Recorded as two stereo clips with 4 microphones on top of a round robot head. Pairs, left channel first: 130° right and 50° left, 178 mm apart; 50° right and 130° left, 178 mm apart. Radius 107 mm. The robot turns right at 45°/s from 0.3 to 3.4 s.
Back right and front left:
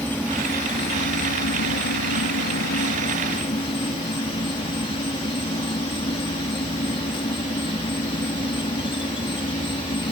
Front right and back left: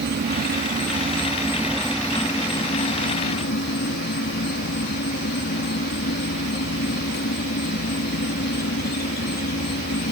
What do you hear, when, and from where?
0.0 s an insect: 150° left; by 10.1 s 70° right